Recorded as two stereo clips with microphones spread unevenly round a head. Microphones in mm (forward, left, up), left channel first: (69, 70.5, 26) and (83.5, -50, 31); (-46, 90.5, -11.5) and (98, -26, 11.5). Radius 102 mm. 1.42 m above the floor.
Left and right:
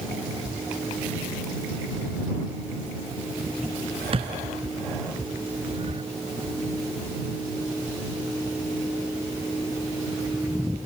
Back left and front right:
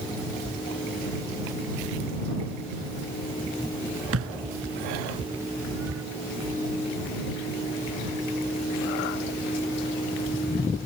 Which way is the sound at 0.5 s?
45° right.